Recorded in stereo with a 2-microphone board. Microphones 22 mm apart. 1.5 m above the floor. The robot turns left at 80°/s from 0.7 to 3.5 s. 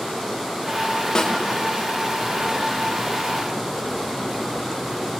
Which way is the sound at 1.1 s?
30° left (ahead or behind).